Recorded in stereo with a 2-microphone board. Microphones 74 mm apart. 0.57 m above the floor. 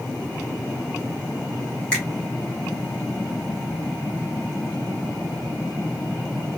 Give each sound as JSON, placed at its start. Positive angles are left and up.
{"t": 1.9, "sound": "a finger snap", "side_deg": 15, "distance_m": 1.6}